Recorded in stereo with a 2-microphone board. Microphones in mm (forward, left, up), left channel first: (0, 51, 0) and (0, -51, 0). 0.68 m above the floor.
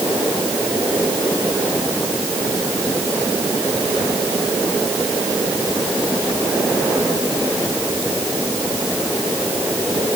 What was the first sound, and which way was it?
Only background noise.